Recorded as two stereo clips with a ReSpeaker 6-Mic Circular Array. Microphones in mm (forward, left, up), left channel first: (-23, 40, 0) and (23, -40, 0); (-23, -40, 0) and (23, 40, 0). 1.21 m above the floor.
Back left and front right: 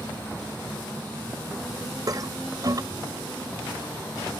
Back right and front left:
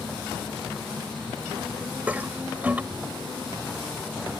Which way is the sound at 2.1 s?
15° right.